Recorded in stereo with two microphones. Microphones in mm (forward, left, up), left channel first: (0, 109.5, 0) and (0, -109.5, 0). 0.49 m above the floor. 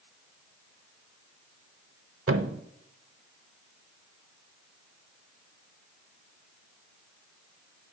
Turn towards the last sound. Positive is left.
turn(degrees=-80)